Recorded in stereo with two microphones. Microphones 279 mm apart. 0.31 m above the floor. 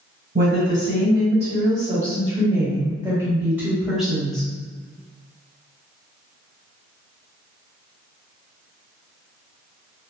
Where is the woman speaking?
45° right (ahead or behind), 2.0 m; by 4.5 s 5° left (ahead or behind), 1.8 m.